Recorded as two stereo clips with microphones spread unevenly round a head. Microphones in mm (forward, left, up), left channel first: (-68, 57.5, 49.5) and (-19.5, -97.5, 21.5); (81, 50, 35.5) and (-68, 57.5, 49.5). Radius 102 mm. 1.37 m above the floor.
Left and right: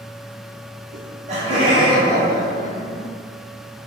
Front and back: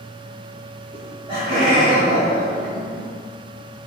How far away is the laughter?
About 0.7 m.